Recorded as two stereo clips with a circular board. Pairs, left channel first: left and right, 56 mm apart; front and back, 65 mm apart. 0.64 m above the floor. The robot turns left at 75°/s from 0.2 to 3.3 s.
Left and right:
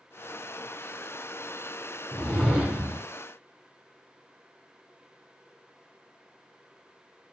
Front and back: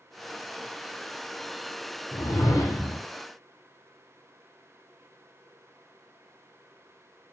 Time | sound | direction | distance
2.1 | a whoosh | 20° left | 1.0 m